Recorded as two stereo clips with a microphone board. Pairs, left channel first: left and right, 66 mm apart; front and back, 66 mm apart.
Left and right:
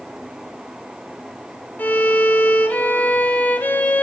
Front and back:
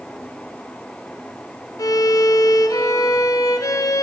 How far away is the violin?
About 0.7 m.